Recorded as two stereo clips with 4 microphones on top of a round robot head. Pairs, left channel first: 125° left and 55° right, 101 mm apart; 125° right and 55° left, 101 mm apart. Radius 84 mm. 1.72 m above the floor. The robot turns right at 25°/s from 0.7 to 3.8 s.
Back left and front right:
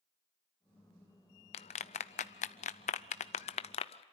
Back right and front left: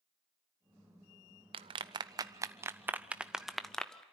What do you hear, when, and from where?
1.5 s a clap: 95° left, 0.5 m; by 4.0 s 155° left, 0.5 m